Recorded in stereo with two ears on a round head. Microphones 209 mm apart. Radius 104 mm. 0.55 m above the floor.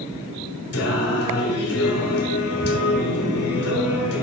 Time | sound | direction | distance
0.7 | singing | 70° left (ahead or behind) | 2 m